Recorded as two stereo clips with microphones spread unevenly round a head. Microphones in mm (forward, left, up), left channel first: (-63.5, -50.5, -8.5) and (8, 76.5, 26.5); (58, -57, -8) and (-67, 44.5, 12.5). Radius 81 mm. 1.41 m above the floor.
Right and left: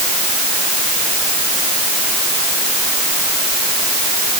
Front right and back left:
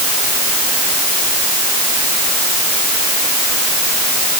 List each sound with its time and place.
Only background noise.